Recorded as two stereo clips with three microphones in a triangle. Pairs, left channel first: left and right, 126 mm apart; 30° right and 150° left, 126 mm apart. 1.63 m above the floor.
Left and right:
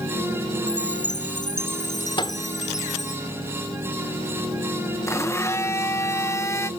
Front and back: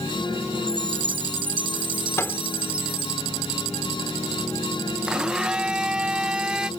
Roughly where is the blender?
Left.